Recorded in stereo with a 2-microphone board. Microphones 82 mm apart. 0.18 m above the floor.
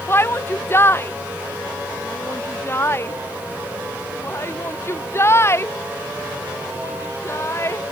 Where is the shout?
30° left (ahead or behind); by 7.8 s 35° left (ahead or behind).